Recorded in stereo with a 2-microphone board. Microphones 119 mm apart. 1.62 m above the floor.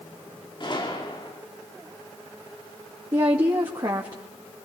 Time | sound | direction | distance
0.6 | a gunshot | 40° left (ahead or behind) | 3.5 m
3.1 | a woman speaking | 40° right (ahead or behind) | 2.5 m